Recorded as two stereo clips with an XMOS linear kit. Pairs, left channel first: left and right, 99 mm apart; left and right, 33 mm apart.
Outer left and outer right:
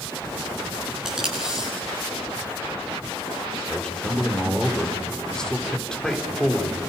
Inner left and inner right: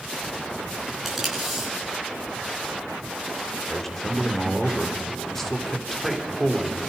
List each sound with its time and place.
1.1 s tape being pulled: 5° right (ahead or behind), 8 m
3.7 s a man speaking: 5° left (ahead or behind), 4 m